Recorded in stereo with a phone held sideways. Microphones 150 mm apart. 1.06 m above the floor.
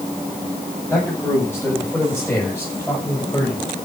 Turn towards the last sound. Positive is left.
turn(degrees=15)  # may be behind; listen again after turning